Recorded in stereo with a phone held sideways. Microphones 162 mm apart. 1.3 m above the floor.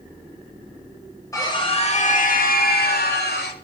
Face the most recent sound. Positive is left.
turn(degrees=85)